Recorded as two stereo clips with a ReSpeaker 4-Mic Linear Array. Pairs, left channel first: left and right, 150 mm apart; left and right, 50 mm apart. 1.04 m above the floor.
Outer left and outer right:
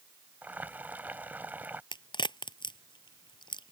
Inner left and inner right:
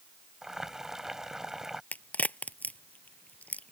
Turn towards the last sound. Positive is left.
turn(degrees=30)  # may be behind; listen again after turning